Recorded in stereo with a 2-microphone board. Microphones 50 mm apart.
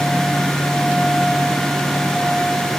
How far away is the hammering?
I don't hear hammering.